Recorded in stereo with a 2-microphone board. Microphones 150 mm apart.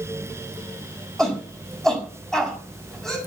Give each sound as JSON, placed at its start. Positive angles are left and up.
{"t": 1.2, "sound": "a shout", "side_deg": 5, "distance_m": 6.5}